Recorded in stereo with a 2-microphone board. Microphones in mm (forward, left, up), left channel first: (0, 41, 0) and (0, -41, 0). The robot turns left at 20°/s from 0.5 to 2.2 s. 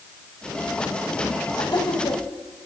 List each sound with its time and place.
1.6 s laughter: 55° left (ahead or behind), 3.5 m; by 2.2 s 65° left (ahead or behind), 3.5 m